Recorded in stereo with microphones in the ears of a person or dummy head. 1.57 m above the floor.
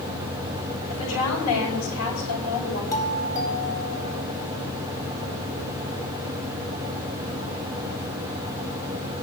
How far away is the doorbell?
About 4 m.